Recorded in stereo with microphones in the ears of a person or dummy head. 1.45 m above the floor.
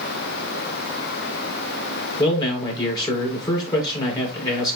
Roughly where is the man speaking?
Left.